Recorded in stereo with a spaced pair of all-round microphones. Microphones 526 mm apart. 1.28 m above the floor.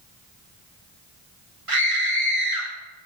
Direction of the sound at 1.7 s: 80° right.